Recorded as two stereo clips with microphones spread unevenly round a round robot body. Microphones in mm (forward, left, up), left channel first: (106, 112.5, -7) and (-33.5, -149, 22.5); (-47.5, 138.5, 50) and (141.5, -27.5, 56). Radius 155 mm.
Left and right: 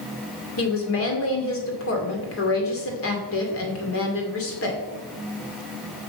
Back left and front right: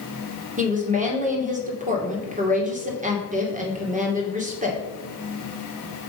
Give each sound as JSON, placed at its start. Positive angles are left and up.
{"t": 0.6, "sound": "a woman speaking", "azimuth_deg": 20, "distance_m": 2.5}